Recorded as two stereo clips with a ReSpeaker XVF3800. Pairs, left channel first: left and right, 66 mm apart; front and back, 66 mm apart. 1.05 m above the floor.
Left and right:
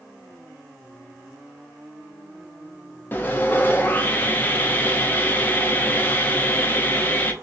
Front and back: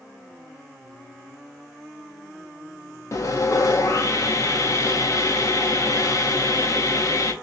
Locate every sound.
3.1 s sawing: 30° left, 0.7 m